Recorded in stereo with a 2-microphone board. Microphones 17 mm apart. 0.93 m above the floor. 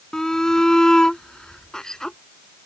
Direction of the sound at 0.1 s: 30° left (ahead or behind).